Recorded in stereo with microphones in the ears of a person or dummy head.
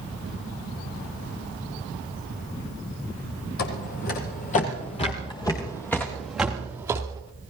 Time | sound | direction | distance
3.6 | footsteps | 50° left (ahead or behind) | 2 m